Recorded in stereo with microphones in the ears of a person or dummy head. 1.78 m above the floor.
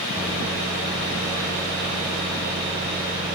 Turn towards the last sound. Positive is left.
turn(degrees=-20)  # may be behind; listen again after turning